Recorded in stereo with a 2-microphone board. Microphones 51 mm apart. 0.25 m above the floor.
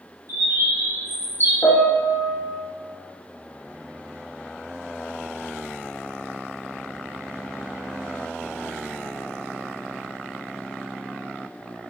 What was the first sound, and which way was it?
A bird, 65° right (ahead or behind).